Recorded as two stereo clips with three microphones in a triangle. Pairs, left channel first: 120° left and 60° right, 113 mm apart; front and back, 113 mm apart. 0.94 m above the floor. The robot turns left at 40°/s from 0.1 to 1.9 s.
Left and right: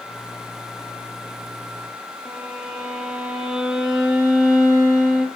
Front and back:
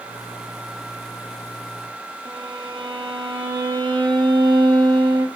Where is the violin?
145° right, 1.7 m.